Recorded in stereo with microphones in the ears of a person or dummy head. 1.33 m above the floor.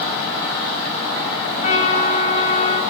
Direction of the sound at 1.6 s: 45° left (ahead or behind).